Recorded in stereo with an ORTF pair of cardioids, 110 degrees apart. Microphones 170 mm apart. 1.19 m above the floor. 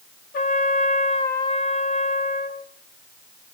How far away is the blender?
I don't hear a blender.